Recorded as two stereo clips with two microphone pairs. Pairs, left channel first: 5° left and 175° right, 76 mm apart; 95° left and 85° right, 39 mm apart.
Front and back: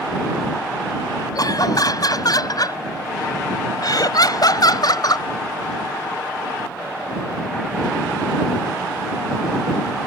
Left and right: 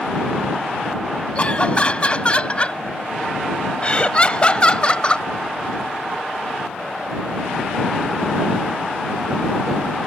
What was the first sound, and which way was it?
Laughter, 40° left.